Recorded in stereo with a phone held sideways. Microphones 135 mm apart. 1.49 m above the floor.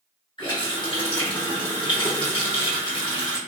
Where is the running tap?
35° left (ahead or behind), 1.1 m.